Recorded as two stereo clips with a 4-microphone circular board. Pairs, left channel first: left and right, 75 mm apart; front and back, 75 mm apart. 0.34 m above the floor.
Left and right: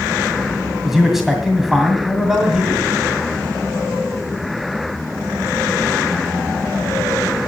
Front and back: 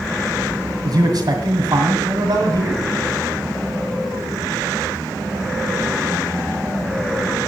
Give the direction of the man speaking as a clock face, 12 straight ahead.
6 o'clock.